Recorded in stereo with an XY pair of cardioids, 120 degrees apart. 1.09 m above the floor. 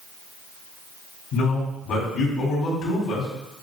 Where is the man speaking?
70° left, 1.9 m.